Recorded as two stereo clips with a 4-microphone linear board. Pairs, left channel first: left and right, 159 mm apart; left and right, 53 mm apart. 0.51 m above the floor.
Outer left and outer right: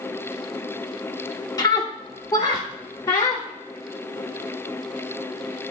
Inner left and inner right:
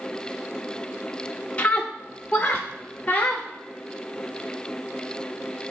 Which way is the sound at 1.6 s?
25° left (ahead or behind).